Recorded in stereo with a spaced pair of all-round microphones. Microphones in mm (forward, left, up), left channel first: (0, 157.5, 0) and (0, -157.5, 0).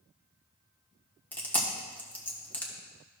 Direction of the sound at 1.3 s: 5° left (ahead or behind).